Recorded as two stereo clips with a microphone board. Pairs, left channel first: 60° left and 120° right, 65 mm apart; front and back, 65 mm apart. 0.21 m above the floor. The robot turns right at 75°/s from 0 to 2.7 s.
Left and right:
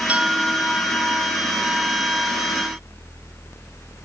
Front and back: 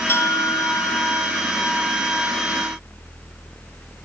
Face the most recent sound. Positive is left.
turn(degrees=140)